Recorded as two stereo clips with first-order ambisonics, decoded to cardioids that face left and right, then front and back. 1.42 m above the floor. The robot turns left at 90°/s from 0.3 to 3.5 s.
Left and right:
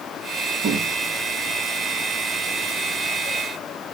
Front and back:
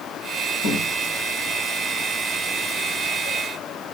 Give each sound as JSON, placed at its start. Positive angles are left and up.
{"t": 0.6, "sound": "a cupboard door", "azimuth_deg": -20, "distance_m": 9.5}